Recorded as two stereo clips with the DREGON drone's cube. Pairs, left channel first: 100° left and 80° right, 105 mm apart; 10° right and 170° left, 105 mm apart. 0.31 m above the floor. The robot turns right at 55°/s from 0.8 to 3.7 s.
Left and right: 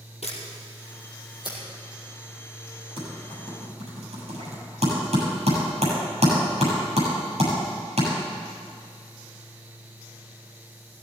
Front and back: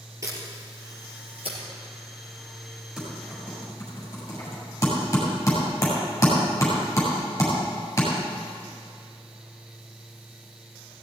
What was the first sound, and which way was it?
A camera shutter, 110° left.